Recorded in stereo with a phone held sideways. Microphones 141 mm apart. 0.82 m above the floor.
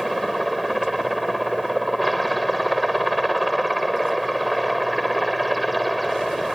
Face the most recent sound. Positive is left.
turn(degrees=0)  # may be behind; listen again after turning